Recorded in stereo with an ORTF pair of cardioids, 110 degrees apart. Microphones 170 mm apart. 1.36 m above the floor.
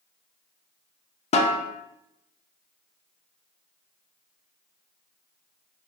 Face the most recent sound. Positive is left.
turn(degrees=40)